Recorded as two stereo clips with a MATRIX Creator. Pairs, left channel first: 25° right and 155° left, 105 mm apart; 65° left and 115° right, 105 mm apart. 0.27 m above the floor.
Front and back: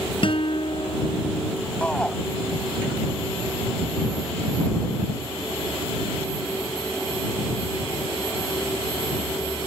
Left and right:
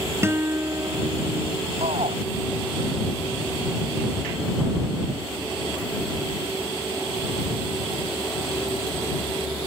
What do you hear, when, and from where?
0.2 s a guitar: 50° right
1.8 s a shout: 100° right